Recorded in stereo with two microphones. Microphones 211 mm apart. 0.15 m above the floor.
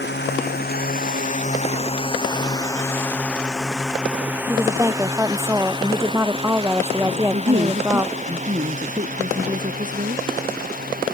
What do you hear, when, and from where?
0.0 s a drone: 55° left (ahead or behind); by 11.1 s 45° right (ahead or behind)
4.5 s a woman speaking: 15° right (ahead or behind)
7.1 s a woman speaking: 40° right (ahead or behind)